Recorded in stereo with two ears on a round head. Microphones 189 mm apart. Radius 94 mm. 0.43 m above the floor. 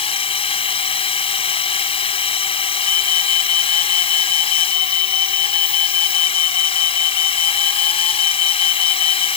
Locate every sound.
0.0 s a drone: 25° left (ahead or behind)
2.8 s an alarm: 85° left